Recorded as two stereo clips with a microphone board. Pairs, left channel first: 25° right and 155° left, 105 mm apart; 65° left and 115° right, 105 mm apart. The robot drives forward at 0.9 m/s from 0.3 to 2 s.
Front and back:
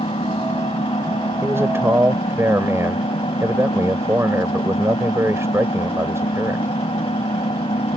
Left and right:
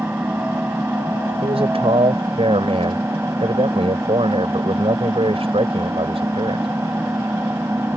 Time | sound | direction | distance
0.0 | an engine running | 40° right | ?
1.4 | a man speaking | 135° right | ?